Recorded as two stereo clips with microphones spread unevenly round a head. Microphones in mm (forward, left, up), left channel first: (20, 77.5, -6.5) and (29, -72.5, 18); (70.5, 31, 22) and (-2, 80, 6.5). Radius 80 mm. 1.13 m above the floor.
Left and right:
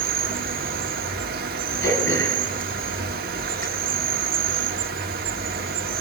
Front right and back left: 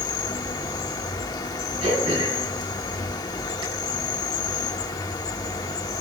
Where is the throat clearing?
160° left, 7 m.